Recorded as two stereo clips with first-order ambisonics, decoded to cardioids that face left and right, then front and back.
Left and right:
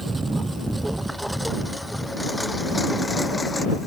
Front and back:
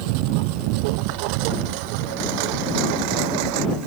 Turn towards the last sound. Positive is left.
turn(degrees=170)